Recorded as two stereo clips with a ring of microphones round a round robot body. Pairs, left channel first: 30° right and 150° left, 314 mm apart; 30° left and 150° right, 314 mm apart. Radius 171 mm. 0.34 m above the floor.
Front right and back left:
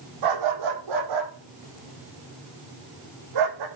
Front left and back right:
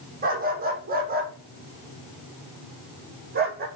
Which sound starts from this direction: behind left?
A dog barking, at 0.2 s.